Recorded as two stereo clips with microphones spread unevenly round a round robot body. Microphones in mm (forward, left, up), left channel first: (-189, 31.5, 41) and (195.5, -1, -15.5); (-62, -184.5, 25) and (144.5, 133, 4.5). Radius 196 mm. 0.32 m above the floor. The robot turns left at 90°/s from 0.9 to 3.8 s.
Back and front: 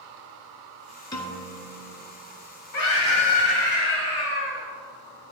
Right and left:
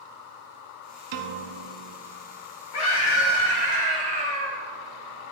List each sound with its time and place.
1.1 s a piano: 95° left, 0.7 m; by 1.9 s 20° left, 0.7 m
2.7 s a scream: 140° right, 1.9 m; by 4.7 s 125° left, 1.9 m